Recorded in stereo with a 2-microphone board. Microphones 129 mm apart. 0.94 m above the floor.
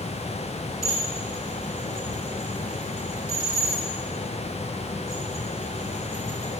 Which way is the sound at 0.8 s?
90° left.